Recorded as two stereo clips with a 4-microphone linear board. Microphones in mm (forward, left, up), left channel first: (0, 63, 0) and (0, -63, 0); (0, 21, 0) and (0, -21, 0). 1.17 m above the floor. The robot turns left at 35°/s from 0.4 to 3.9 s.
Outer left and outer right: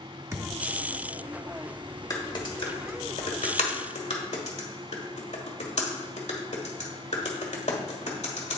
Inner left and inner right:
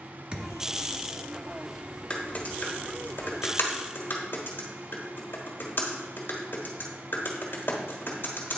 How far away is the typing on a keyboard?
About 1.4 m.